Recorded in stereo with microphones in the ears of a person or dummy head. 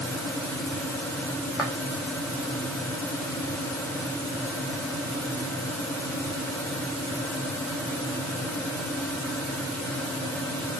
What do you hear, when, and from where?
1.6 s footsteps: 10° right (ahead or behind), 4 m